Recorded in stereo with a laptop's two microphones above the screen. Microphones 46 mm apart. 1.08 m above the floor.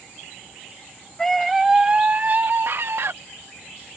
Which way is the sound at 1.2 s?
10° left (ahead or behind).